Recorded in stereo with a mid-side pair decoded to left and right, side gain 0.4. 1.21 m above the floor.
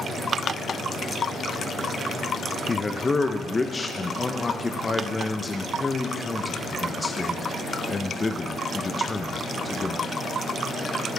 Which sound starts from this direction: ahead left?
A man speaking, at 2.7 s.